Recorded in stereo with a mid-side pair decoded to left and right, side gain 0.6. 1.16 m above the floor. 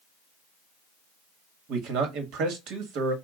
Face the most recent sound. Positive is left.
turn(degrees=-65)